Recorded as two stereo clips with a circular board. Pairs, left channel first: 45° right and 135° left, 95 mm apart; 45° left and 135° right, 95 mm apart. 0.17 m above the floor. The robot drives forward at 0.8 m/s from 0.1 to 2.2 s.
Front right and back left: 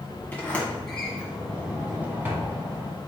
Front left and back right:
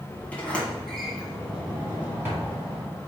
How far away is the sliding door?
About 1.5 m.